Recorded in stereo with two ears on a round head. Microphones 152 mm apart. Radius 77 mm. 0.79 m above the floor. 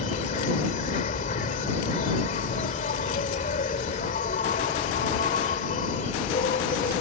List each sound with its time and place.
0.0 s an insect: 45° left (ahead or behind)